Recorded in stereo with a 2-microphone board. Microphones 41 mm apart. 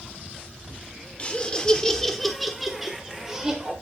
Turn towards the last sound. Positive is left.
turn(degrees=-20)  # may be behind; listen again after turning